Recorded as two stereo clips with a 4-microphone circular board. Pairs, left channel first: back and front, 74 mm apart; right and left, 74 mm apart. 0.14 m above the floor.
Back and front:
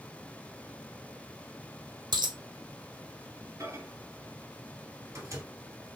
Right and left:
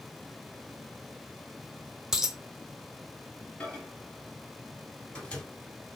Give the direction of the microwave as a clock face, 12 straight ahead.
1 o'clock.